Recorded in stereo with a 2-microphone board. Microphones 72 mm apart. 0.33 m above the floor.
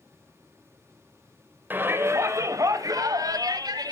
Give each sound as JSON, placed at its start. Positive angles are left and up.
{"t": 1.7, "sound": "a shout", "side_deg": -25, "distance_m": 1.0}